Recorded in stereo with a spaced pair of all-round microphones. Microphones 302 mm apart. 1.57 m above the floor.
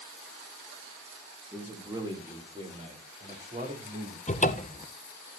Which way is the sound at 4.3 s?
25° left (ahead or behind).